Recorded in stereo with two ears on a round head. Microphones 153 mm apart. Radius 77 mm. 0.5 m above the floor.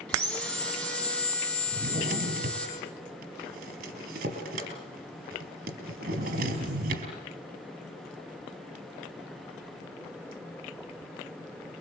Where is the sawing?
5° left (ahead or behind), 7 m.